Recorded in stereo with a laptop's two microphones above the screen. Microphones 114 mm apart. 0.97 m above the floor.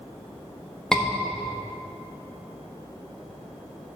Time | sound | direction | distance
0.9 | a scream | 5° left (ahead or behind) | 1.5 m